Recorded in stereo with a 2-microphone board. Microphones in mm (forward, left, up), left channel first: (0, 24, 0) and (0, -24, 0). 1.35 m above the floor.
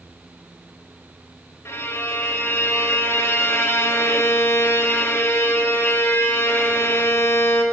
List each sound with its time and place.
1.6 s a violin: 65° left (ahead or behind), 1.8 m